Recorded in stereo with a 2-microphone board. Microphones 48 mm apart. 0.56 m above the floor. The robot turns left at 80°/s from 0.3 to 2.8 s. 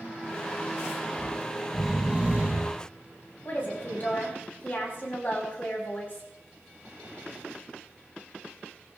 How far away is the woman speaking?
About 4.5 m.